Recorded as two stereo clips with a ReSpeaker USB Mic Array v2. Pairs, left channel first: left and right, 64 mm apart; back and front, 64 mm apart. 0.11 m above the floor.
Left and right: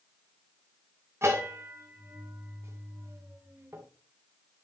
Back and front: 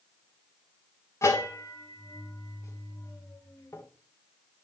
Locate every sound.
1.2 s a bell: 140° right, 2 m